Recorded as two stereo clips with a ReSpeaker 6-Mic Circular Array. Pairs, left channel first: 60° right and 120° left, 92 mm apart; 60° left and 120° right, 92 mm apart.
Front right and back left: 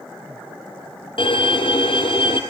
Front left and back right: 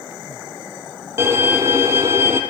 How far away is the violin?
About 1.9 m.